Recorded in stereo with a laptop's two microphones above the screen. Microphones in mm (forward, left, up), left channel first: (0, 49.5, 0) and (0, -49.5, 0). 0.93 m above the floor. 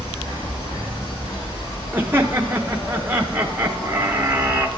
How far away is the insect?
About 2.5 m.